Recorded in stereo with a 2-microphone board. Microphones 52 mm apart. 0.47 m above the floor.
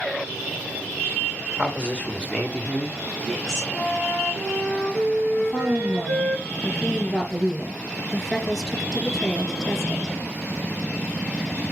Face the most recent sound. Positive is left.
turn(degrees=5)  # may be behind; listen again after turning